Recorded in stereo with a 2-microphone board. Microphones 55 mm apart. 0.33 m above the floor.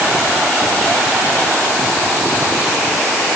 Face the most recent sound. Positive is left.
No sound to turn to.